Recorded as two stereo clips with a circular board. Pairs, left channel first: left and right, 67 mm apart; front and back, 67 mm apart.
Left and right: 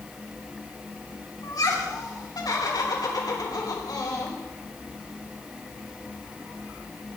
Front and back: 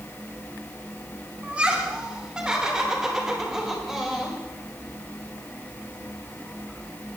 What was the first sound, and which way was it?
Laughter, 110° left.